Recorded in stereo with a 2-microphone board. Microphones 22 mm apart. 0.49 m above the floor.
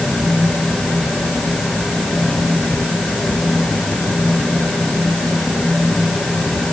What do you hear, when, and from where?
Only background noise.